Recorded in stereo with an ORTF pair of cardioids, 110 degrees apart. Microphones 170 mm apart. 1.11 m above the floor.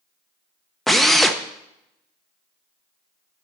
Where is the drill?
Straight ahead, 0.8 m.